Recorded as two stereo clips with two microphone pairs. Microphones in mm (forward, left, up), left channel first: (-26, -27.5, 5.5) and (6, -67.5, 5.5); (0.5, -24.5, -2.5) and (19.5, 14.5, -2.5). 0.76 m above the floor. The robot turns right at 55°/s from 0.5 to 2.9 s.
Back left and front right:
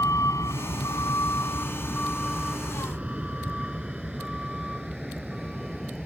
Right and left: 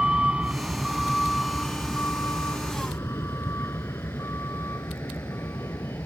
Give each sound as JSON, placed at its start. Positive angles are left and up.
{"t": 0.0, "sound": "a vehicle", "azimuth_deg": 135}